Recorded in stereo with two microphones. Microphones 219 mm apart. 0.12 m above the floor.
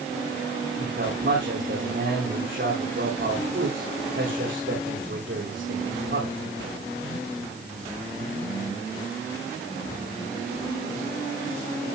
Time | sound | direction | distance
0.8 | a man speaking | 60° right (ahead or behind) | 8 m